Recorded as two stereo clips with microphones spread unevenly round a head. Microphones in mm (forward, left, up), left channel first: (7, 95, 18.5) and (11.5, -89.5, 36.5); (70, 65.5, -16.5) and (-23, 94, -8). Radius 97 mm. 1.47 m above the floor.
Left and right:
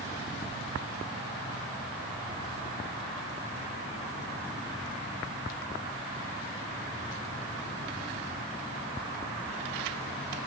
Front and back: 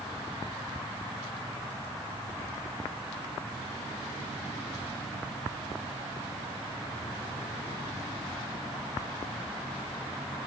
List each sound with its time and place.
Only background noise.